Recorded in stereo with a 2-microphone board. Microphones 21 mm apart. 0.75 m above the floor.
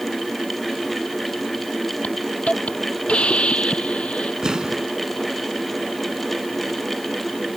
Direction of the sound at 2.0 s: 65° left (ahead or behind).